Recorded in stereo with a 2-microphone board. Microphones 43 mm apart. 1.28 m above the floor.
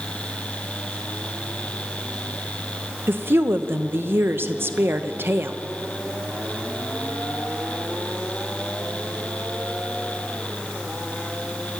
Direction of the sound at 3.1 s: 65° right (ahead or behind).